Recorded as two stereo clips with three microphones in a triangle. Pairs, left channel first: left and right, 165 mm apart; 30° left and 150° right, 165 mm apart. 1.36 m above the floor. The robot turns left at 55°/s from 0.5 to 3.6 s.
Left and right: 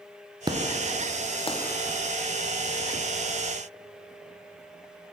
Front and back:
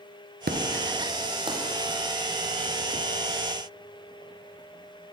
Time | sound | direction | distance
0.5 | an explosion | 155° right | 0.6 m